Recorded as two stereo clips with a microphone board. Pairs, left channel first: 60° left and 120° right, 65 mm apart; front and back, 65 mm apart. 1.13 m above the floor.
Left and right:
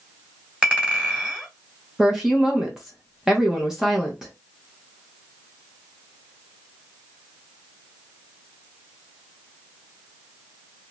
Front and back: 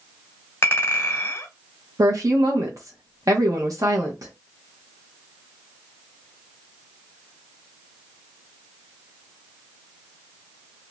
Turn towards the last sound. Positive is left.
turn(degrees=160)